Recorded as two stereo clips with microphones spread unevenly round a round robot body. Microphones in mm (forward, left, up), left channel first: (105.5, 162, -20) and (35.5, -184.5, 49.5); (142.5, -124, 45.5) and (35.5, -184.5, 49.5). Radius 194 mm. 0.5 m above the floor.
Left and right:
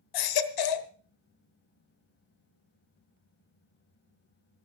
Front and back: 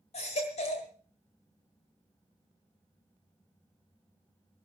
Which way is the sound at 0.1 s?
75° left.